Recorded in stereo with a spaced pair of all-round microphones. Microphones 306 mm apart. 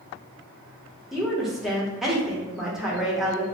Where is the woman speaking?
Centre (ahead or behind), 0.9 m.